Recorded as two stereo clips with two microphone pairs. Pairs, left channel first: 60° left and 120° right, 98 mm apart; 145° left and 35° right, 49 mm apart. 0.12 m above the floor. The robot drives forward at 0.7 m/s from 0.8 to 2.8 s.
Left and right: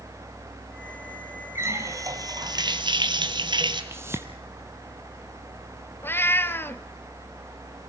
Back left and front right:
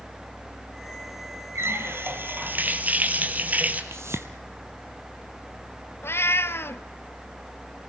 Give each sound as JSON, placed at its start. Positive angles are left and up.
{"t": 1.6, "sound": "a running tap", "azimuth_deg": -55, "distance_m": 1.9}
{"t": 3.9, "sound": "a whoosh", "azimuth_deg": -55, "distance_m": 1.2}
{"t": 6.0, "sound": "a cat meowing", "azimuth_deg": 125, "distance_m": 0.7}